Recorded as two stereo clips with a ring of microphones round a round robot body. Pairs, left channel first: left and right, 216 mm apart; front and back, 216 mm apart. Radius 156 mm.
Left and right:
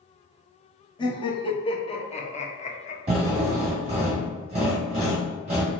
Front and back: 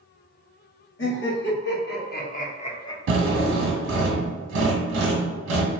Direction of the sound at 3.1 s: 155° right.